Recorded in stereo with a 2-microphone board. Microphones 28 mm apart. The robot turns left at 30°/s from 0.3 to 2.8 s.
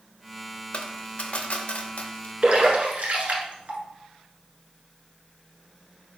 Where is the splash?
55° right (ahead or behind), 1.3 m; by 3.8 s 60° right (ahead or behind), 1.3 m.